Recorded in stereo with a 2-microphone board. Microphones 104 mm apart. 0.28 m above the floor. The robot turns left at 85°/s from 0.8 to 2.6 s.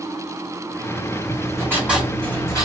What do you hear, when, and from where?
1.3 s writing: 115° right, 2 m; by 2.6 s 135° left, 2 m